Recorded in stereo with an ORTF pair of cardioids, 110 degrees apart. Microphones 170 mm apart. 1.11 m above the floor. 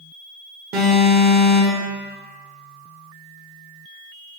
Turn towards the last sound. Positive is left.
turn(degrees=-65)